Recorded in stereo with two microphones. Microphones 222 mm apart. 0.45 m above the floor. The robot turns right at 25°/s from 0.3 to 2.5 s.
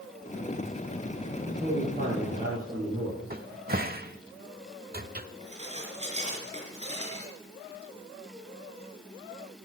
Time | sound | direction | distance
1.4 | a man speaking | 50° right (ahead or behind) | 6.5 m
3.3 | a cupboard door | 40° right (ahead or behind) | 1.0 m
5.4 | dishes clattering | 30° right (ahead or behind) | 4.5 m